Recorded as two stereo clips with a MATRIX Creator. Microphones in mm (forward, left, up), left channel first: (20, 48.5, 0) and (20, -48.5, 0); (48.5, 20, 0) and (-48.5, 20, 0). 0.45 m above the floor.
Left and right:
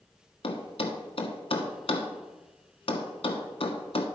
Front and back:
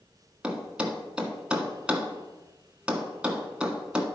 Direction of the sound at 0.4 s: 100° left.